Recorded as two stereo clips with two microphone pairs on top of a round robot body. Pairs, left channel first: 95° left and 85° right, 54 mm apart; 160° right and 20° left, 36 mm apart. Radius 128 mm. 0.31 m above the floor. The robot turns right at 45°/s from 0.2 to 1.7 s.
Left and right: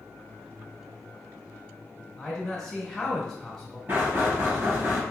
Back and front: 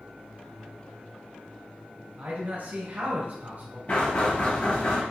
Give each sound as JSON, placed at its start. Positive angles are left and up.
{"t": 2.2, "sound": "a man speaking", "azimuth_deg": 5, "distance_m": 1.5}
{"t": 3.9, "sound": "knocking", "azimuth_deg": -125, "distance_m": 1.6}